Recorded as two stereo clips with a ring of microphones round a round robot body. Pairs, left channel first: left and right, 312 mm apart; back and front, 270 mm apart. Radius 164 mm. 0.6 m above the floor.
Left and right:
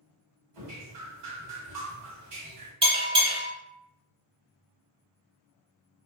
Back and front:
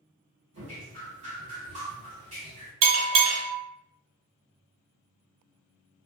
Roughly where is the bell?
Ahead.